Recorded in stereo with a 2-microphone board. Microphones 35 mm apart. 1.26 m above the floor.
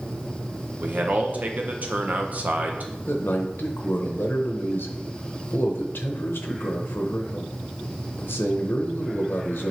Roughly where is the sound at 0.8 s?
Right.